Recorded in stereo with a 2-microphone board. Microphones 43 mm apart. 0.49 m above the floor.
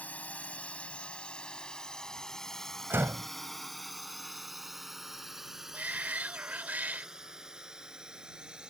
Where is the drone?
40° left (ahead or behind); by 8.7 s 20° right (ahead or behind).